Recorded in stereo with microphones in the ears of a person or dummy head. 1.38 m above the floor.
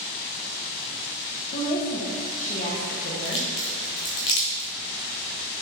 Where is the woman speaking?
40° left (ahead or behind), 0.9 m.